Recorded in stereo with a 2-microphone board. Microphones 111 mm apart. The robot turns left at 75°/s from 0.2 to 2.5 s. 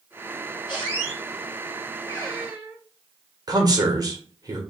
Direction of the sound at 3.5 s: 35° right (ahead or behind).